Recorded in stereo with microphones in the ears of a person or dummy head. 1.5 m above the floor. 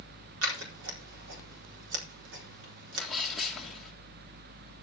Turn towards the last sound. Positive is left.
turn(degrees=-5)  # may be behind; listen again after turning